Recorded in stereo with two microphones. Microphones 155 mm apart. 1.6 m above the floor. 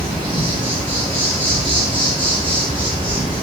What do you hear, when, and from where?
0.0 s an insect: 35° right (ahead or behind), 1.1 m